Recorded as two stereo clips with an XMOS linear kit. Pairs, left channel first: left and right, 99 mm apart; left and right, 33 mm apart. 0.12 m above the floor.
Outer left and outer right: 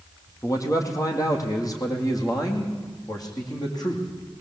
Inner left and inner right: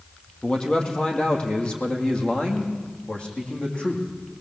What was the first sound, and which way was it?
A man speaking, 35° left (ahead or behind).